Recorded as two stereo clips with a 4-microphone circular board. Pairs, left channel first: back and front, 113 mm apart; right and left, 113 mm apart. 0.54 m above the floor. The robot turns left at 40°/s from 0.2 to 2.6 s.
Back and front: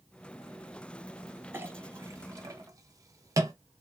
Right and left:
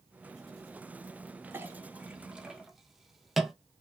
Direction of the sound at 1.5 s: 50° left.